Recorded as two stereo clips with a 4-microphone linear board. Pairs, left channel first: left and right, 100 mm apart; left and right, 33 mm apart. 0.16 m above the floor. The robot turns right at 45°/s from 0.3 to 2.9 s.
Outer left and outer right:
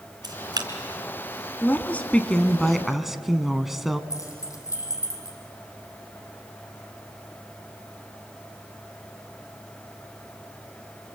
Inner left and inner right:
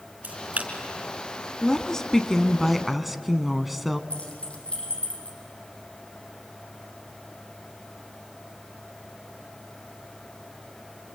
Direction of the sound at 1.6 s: 20° left (ahead or behind).